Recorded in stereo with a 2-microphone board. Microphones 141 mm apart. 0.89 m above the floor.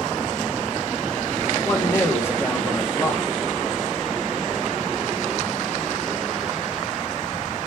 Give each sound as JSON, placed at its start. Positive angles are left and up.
{"t": 1.6, "sound": "a man speaking", "side_deg": 15, "distance_m": 1.0}